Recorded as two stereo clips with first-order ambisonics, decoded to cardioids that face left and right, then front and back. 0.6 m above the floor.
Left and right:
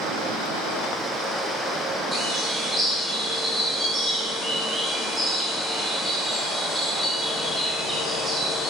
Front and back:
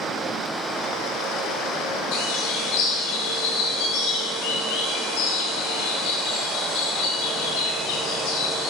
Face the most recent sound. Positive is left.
turn(degrees=-15)